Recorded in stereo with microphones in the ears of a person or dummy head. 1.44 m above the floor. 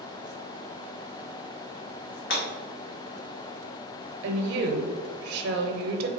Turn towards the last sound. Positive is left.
turn(degrees=-60)  # may be behind; listen again after turning